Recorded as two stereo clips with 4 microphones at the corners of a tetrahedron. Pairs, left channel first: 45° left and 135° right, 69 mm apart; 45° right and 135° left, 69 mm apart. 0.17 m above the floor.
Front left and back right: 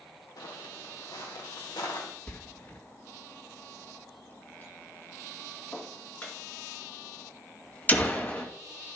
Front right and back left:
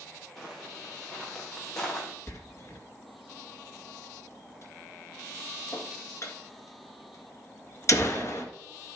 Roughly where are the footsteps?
Ahead left.